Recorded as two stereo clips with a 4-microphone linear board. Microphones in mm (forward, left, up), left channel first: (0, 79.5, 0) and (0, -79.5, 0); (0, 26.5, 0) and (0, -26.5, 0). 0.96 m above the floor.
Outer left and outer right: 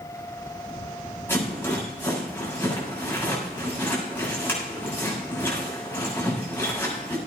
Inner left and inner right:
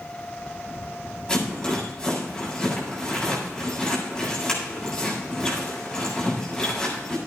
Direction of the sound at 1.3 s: 15° left (ahead or behind).